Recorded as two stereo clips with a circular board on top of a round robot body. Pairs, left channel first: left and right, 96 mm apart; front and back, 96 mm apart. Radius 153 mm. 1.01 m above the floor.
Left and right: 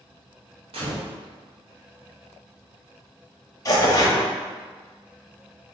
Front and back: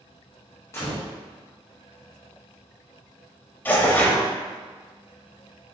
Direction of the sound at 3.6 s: 60° left.